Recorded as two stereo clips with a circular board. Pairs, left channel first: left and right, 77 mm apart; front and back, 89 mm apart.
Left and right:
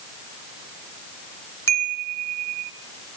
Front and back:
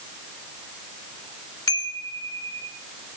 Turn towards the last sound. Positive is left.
turn(degrees=45)